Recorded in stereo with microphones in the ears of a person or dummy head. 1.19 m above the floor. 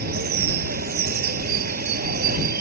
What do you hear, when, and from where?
0.0 s running water: 50° right (ahead or behind)